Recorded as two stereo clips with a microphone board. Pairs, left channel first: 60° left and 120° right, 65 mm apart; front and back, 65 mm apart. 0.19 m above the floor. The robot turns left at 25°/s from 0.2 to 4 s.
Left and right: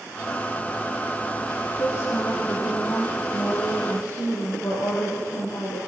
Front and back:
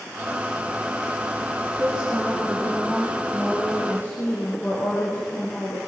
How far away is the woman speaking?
About 7 m.